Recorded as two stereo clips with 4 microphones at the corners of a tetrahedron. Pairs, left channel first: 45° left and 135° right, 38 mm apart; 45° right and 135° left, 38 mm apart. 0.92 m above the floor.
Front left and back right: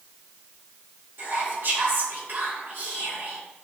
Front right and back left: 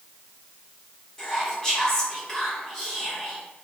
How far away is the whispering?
About 0.8 m.